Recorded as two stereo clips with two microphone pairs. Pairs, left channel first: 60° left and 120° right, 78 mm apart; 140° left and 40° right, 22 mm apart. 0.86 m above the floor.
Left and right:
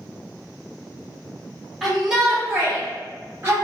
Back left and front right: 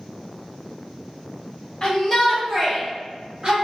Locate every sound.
1.8 s a shout: 150° left, 1.0 m; by 3.5 s 65° right, 1.0 m